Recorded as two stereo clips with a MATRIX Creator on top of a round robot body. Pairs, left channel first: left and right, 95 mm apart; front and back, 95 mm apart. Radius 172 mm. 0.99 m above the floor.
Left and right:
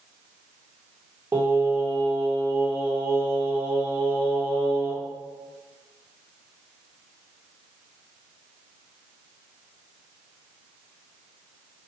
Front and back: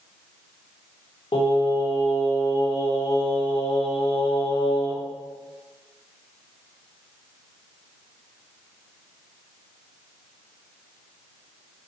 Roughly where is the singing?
Ahead.